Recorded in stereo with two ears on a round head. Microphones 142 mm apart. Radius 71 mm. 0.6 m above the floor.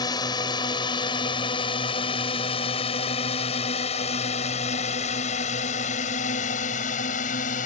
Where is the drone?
25° left (ahead or behind); by 7.7 s 55° left (ahead or behind).